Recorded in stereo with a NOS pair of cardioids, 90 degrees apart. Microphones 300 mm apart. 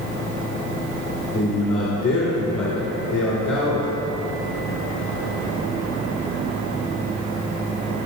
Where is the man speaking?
60° left, 2.5 m.